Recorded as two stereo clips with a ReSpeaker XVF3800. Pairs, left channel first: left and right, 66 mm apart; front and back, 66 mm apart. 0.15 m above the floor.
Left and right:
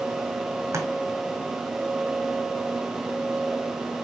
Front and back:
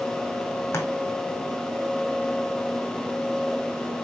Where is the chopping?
50° right, 2 m.